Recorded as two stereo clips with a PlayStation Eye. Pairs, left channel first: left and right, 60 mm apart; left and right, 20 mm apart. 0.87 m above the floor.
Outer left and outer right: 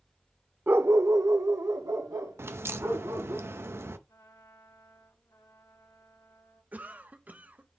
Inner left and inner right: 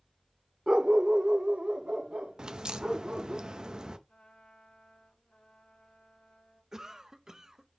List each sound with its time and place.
0.7 s a dog barking: 35° right (ahead or behind), 0.6 m; by 3.4 s 70° right (ahead or behind), 2.5 m
2.4 s a crack: 45° right (ahead or behind), 0.6 m
4.1 s a trumpet: 90° left, 5 m
6.7 s a cough: 30° right (ahead or behind), 0.7 m